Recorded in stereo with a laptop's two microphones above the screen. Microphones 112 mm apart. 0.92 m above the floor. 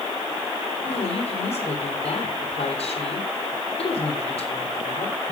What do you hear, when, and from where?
0.8 s a woman speaking: 60° left (ahead or behind), 3.5 m